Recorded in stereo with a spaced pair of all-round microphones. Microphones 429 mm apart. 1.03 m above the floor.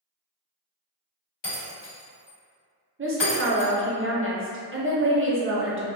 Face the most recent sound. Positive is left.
turn(degrees=-30)  # may be behind; listen again after turning